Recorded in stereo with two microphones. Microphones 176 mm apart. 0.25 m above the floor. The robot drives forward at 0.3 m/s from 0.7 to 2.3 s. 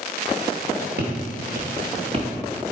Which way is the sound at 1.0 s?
75° right (ahead or behind).